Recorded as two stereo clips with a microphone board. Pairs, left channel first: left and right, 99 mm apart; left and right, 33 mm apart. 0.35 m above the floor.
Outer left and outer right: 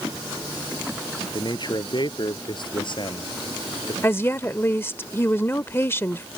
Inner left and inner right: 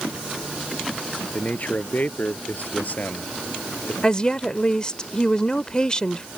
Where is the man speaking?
50° left (ahead or behind); by 3.9 s 55° left (ahead or behind).